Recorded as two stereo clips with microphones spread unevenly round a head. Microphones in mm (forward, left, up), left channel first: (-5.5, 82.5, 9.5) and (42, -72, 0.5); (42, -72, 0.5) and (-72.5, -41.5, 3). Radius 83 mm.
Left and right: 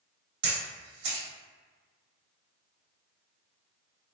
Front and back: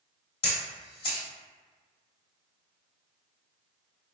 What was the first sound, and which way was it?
A camera shutter, 55° right.